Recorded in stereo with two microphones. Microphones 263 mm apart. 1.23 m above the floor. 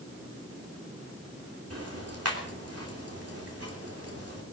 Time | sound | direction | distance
1.7 | ticking | 65° right (ahead or behind) | 3 m